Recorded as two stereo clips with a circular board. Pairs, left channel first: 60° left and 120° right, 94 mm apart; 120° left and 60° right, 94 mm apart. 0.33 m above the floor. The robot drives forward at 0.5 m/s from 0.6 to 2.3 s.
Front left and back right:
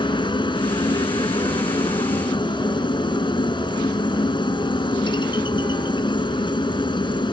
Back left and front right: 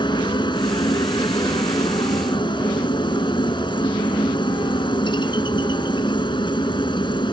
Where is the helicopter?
85° left; by 7.3 s 90° left.